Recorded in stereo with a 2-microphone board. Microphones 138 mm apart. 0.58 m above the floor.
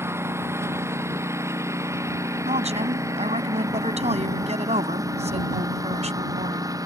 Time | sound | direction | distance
0.0 | a lawn mower | 20° right (ahead or behind) | ?
2.5 | a woman speaking | 60° right (ahead or behind) | ?